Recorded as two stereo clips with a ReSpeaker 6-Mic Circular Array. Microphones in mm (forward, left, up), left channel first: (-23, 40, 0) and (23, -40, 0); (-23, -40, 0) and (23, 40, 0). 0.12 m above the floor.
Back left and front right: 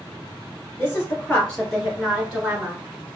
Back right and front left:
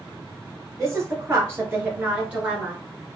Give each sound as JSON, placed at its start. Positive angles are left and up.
{"t": 0.8, "sound": "a woman speaking", "azimuth_deg": 75, "distance_m": 1.9}